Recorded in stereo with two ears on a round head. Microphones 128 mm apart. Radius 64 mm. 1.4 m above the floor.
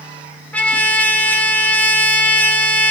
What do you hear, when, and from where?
0.5 s a trumpet: 10° left (ahead or behind), 1.6 m